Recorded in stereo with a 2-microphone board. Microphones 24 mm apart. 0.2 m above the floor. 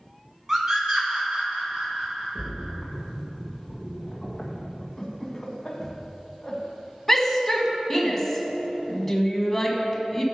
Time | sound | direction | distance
0.5 | a scream | 20° right (ahead or behind) | 2 m
2.4 | a splash | 10° left (ahead or behind) | 1.9 m
5.0 | laughter | 15° left (ahead or behind) | 1.7 m
7.1 | a shout | 10° left (ahead or behind) | 1.5 m